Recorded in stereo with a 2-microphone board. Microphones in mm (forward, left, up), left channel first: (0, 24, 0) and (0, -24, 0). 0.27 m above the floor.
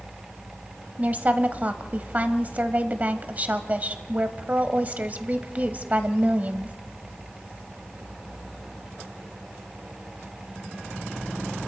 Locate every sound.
1.0 s a woman speaking: 35° right (ahead or behind), 1.2 m